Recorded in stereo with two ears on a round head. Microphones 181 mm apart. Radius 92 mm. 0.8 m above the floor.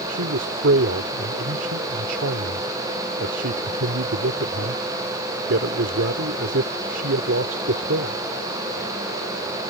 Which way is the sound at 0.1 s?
70° right (ahead or behind).